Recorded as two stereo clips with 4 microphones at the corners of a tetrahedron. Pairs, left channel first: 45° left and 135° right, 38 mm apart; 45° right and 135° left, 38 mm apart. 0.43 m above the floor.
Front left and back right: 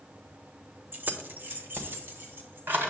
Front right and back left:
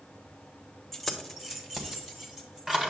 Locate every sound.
0.9 s keys jangling: 130° right, 0.9 m; by 2.9 s 155° right, 2.5 m